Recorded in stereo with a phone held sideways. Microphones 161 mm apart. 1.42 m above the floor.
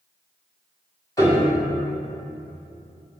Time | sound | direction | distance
1.2 | a piano | 20° left (ahead or behind) | 1.7 m